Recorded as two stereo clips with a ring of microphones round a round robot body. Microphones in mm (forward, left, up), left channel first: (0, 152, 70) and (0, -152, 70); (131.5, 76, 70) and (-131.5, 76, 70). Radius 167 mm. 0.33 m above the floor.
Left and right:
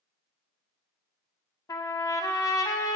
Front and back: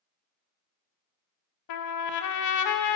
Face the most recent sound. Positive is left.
turn(degrees=10)